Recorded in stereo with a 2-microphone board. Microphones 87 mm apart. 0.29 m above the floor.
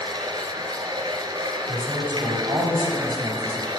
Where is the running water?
55° right (ahead or behind), 0.9 m.